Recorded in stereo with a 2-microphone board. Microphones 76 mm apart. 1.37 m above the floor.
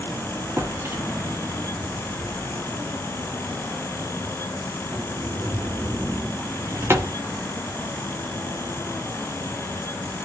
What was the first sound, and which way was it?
A drawer, 35° right (ahead or behind).